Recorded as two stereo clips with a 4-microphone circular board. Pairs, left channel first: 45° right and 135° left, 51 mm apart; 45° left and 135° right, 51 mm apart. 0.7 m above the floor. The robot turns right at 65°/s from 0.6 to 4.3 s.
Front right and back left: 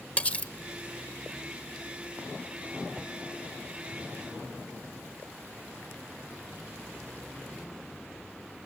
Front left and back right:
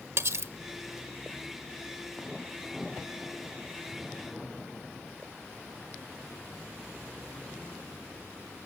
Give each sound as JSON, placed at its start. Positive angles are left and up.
{"t": 0.2, "sound": "cutlery clinking", "azimuth_deg": -105, "distance_m": 1.0}